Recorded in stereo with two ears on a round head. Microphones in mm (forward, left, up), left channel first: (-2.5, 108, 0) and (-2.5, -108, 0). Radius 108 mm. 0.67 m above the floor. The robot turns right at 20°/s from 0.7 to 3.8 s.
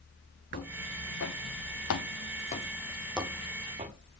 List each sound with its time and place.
0.5 s footsteps: 35° left (ahead or behind), 2 m; by 4.0 s 30° right (ahead or behind), 2 m